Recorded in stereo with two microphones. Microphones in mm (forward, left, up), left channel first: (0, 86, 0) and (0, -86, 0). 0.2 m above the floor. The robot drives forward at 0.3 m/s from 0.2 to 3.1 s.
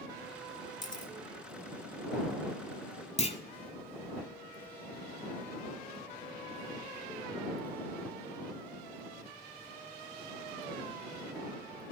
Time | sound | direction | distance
0.8 | a camera shutter | 25° left (ahead or behind) | 1.7 m
3.2 | a clunk | 40° left (ahead or behind) | 0.7 m